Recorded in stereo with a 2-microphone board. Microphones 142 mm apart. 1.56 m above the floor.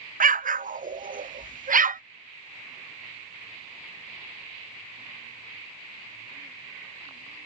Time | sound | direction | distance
0.2 | an explosion | 70° right (ahead or behind) | ?